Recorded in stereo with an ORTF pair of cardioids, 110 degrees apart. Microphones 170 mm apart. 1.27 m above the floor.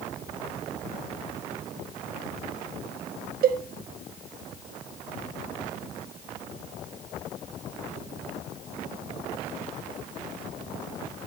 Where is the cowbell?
60° right, 1.8 m.